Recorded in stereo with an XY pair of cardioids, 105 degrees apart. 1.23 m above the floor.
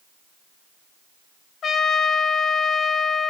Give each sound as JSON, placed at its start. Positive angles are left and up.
{"t": 1.6, "sound": "a trumpet", "azimuth_deg": 60, "distance_m": 0.8}